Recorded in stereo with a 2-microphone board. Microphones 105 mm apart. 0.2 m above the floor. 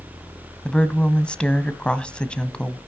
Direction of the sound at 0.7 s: 10° left (ahead or behind).